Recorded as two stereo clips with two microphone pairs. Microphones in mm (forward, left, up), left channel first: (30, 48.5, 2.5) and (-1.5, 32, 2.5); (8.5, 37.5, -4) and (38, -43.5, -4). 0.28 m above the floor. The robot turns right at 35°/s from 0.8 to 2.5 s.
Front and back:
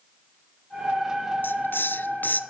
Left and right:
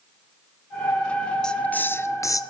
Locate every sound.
1.4 s a hiss: 25° left, 0.9 m; by 2.4 s 60° left, 0.9 m